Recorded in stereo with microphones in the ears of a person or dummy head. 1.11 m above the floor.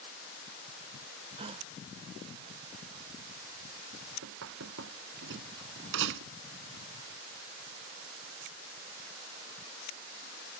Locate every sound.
1.4 s a gasp: 30° right (ahead or behind)
4.2 s knocking: 70° right (ahead or behind)